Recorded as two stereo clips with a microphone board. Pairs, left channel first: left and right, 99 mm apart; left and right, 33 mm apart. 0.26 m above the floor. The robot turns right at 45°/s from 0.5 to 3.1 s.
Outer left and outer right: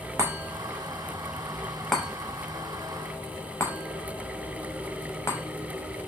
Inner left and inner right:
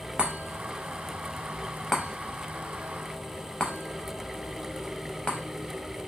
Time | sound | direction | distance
0.2 | a chime | 30° right (ahead or behind) | 0.6 m